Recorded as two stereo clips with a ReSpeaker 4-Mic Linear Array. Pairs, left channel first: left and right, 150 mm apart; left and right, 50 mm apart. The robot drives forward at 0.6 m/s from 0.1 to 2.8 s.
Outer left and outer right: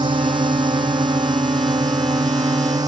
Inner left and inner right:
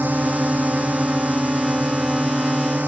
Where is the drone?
30° right (ahead or behind); by 2.9 s 25° right (ahead or behind).